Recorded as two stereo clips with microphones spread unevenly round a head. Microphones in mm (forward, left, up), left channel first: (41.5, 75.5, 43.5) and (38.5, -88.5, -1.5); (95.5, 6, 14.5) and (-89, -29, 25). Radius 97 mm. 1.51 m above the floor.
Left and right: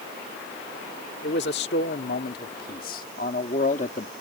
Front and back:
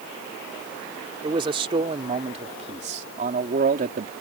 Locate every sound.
1.2 s a man speaking: 125° left; by 4.1 s 145° left